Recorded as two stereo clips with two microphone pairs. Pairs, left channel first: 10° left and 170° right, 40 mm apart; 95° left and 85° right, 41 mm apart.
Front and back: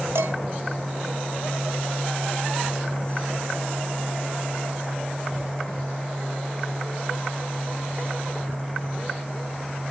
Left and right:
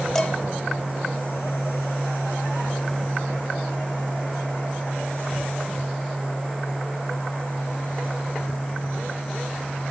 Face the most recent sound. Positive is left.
turn(degrees=175)